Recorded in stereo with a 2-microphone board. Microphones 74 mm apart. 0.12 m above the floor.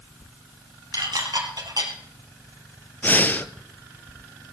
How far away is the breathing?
About 0.6 m.